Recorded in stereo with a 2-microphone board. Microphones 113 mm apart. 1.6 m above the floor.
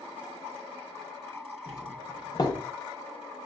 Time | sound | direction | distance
1.7 | a doorbell | 35° left (ahead or behind) | 0.7 m